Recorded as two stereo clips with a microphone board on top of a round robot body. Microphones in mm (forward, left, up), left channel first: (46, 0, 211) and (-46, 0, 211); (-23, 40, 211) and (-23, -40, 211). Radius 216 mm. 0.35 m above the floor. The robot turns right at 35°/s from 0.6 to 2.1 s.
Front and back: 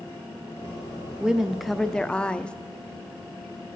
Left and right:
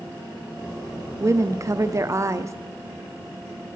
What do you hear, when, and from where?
1.2 s a woman speaking: 105° right, 1.0 m; by 2.5 s 75° right, 1.0 m